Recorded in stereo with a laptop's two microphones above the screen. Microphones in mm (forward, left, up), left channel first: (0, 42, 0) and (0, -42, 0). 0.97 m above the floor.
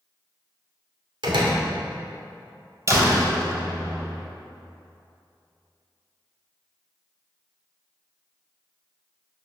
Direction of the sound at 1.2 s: 80° right.